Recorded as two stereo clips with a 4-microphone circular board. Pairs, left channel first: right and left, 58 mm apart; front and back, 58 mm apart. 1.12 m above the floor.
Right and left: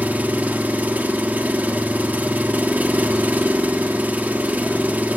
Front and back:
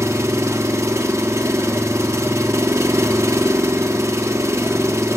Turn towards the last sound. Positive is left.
turn(degrees=150)